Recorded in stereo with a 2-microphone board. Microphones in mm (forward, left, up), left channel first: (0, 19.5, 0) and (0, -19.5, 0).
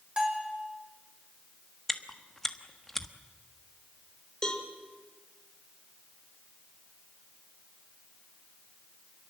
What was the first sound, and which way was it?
A bell, 25° right (ahead or behind).